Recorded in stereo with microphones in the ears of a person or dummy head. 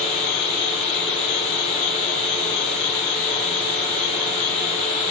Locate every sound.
0.0 s a fan: 5° left (ahead or behind), 5.5 m